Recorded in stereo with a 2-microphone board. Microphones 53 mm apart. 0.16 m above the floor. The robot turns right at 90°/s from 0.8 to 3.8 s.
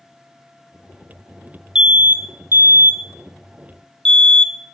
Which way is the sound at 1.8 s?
10° right (ahead or behind).